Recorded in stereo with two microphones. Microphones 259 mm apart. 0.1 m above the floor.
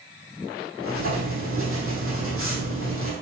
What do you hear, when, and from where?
0.8 s writing: 55° right (ahead or behind), 3.5 m